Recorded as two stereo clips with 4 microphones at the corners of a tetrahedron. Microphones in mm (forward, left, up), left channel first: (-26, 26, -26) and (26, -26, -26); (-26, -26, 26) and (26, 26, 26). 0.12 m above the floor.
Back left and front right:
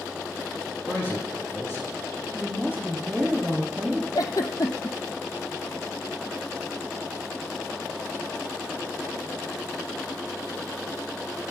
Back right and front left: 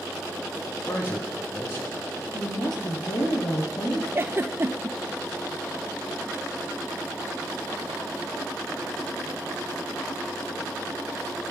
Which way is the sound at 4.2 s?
100° left.